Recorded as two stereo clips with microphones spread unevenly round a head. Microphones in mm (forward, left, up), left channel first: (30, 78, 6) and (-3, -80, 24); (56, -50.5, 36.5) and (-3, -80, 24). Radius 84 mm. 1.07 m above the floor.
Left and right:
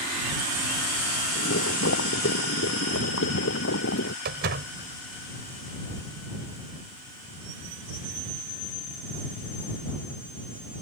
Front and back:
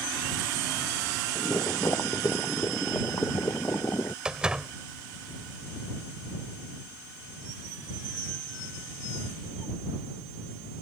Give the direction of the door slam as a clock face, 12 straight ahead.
2 o'clock.